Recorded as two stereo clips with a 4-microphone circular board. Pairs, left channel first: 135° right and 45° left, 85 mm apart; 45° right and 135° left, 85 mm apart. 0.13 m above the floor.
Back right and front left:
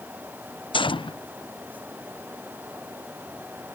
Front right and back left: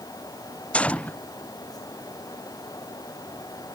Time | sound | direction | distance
0.7 | a gunshot | 120° right | ?